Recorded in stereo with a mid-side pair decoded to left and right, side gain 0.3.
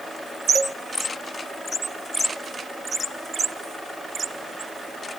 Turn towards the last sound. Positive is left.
turn(degrees=-35)